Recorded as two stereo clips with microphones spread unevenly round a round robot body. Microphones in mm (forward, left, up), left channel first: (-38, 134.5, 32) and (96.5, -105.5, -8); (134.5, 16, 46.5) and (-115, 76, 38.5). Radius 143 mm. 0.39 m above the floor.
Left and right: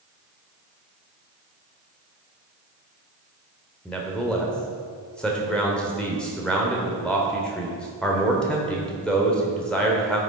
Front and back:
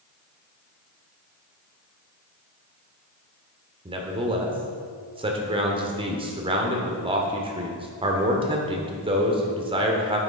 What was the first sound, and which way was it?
A man speaking, 145° right.